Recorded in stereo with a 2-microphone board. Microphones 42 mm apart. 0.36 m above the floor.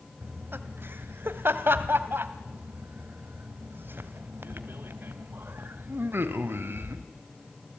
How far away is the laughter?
About 1.6 m.